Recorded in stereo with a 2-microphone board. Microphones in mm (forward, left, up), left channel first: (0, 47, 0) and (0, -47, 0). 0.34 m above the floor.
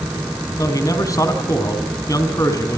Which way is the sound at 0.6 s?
35° left (ahead or behind).